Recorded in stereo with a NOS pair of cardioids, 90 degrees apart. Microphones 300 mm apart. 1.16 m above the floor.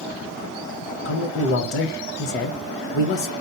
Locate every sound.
1.1 s a man speaking: 45° left, 1.0 m